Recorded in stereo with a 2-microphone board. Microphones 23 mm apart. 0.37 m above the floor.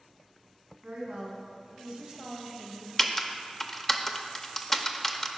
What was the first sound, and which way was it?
A woman speaking, 60° right (ahead or behind).